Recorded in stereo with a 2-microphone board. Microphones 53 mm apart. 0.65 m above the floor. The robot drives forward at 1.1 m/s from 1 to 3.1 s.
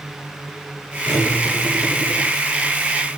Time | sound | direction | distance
1.1 | cutlery clinking | 70° left (ahead or behind) | 4.5 m